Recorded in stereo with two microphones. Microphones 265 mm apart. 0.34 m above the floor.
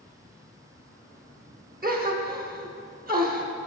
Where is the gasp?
35° right (ahead or behind), 0.6 m.